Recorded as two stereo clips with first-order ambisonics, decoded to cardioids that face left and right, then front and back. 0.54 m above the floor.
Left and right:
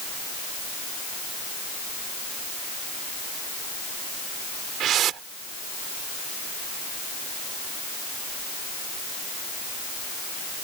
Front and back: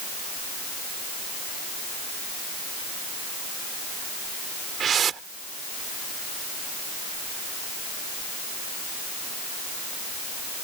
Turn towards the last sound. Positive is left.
turn(degrees=-125)